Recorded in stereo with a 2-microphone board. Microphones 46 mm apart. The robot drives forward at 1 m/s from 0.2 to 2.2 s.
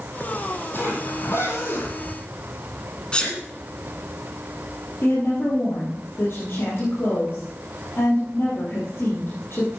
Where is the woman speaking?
55° left (ahead or behind), 4 m.